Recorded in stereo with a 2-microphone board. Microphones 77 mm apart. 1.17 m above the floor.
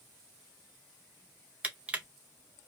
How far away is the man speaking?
I don't hear a man speaking.